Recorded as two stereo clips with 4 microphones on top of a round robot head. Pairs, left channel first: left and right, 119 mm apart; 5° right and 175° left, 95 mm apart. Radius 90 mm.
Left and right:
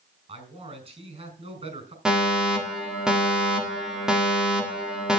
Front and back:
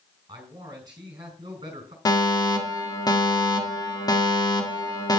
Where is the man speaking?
125° right, 5 m.